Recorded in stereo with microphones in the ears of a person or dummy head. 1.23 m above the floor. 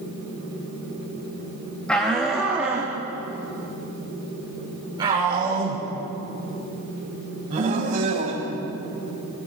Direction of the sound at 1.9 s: 5° left (ahead or behind).